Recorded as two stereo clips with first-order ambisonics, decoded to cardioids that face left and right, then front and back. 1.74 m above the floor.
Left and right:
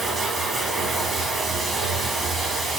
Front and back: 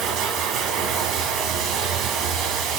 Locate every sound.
0.0 s running water: 160° right, 2.5 m